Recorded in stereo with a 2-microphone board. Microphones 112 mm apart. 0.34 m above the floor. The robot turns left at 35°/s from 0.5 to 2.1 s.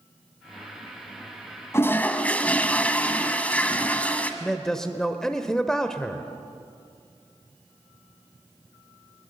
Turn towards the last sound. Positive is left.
turn(degrees=5)  # may be behind; listen again after turning